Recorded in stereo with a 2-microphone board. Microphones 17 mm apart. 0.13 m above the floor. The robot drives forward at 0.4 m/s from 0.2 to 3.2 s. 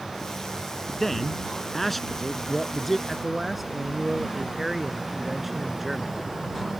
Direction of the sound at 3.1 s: 10° right (ahead or behind).